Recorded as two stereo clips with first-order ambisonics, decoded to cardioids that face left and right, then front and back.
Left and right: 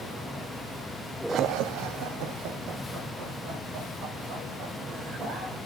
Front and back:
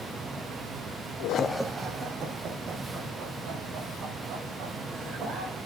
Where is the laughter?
35° right, 0.5 m; by 5.6 s 125° right, 6 m.